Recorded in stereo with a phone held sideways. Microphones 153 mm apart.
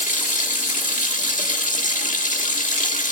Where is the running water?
55° left (ahead or behind), 1.5 m.